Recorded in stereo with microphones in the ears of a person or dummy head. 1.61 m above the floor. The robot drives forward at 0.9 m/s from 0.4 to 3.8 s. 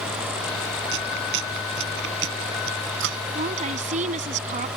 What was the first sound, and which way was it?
Chewing, 65° right (ahead or behind).